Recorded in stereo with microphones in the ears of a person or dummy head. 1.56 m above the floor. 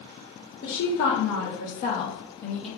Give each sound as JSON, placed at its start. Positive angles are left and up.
{"t": 0.6, "sound": "a woman speaking", "side_deg": 75, "distance_m": 1.3}